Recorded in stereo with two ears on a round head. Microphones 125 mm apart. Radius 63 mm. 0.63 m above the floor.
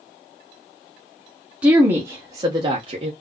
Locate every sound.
1.6 s a woman speaking: 10° right (ahead or behind), 1.1 m; by 3.1 s 40° right (ahead or behind), 1.0 m